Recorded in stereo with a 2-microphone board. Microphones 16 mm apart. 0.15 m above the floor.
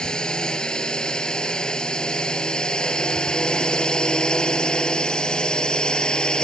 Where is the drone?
60° left (ahead or behind); by 6.5 s 65° left (ahead or behind).